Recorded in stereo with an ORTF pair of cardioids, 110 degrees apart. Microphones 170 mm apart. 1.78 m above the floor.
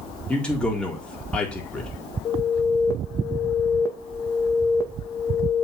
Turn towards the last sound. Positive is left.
turn(degrees=20)